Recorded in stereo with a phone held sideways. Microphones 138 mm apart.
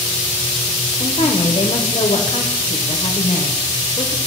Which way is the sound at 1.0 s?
45° left (ahead or behind).